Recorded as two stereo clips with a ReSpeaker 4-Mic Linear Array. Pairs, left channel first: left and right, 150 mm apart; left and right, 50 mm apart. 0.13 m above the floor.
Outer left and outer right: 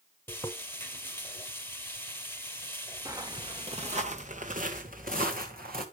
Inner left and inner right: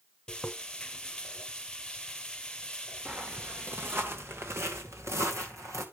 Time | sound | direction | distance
0.3 | frying | 15° left (ahead or behind) | 0.8 m
3.0 | footsteps | 20° right (ahead or behind) | 1.3 m